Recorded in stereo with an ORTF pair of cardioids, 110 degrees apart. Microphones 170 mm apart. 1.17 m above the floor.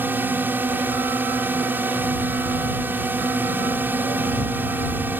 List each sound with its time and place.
0.0 s a drone: 10° right